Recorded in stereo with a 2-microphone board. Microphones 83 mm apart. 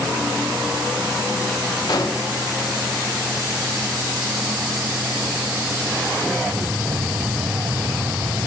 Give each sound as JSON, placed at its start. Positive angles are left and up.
{"t": 1.9, "sound": "an explosion", "side_deg": 55, "distance_m": 0.8}